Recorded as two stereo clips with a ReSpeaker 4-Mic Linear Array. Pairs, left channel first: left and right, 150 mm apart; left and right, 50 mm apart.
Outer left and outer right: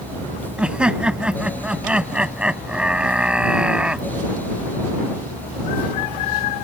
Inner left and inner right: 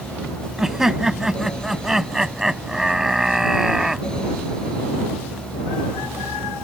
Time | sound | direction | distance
0.6 | laughter | 5° right (ahead or behind) | ?